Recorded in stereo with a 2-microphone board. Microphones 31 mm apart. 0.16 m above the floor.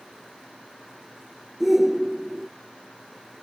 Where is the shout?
10° right (ahead or behind).